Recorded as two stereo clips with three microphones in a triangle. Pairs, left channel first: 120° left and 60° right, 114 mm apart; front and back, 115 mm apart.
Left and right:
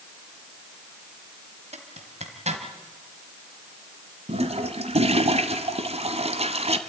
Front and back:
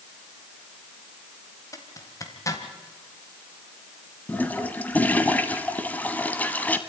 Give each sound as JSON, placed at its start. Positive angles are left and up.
{"t": 1.7, "sound": "a zipper", "azimuth_deg": -60, "distance_m": 1.7}
{"t": 4.3, "sound": "a toilet flushing", "azimuth_deg": -75, "distance_m": 1.1}